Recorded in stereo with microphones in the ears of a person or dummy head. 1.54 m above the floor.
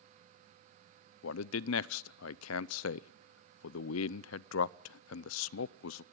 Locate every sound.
1.2 s a man speaking: 70° left (ahead or behind), 0.5 m